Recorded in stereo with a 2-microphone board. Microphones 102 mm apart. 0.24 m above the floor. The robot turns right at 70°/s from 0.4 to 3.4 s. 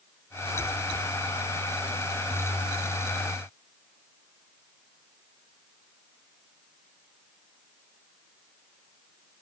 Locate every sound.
Only background noise.